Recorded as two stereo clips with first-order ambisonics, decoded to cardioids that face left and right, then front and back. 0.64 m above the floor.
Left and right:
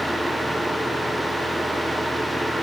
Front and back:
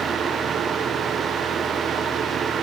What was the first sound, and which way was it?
Only background noise.